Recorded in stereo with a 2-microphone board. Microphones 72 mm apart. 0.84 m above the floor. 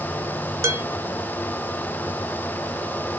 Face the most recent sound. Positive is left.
turn(degrees=-45)  # may be behind; listen again after turning